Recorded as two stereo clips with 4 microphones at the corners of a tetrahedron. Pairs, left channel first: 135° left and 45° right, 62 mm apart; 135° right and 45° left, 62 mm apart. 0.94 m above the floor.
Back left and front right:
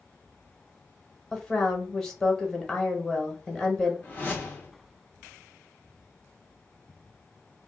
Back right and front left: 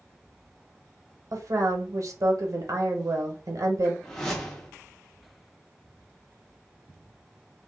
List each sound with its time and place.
1.3 s a woman speaking: 55° left, 0.8 m
4.0 s a whoosh: 150° left, 0.7 m